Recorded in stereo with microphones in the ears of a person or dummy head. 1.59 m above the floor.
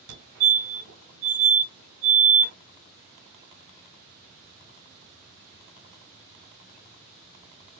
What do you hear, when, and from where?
0.1 s a fire alarm: 75° right (ahead or behind), 3 m